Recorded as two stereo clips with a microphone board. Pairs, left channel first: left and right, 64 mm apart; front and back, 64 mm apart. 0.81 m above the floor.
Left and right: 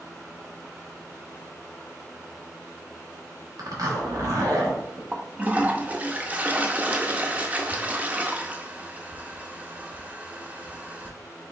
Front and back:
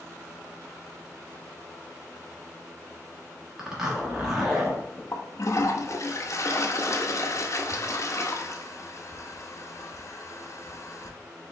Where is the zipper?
100° right, 1.2 m.